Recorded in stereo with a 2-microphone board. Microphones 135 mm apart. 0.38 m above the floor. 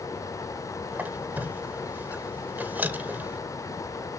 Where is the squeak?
15° right (ahead or behind), 0.9 m.